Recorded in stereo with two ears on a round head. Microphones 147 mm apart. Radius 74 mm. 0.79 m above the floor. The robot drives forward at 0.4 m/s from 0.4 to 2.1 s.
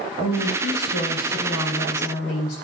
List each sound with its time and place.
0.2 s a woman speaking: 80° left, 3.5 m; by 2.5 s 75° left (ahead or behind), 3.5 m